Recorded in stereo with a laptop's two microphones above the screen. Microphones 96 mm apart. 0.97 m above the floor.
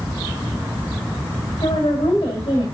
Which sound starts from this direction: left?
A woman speaking, at 1.6 s.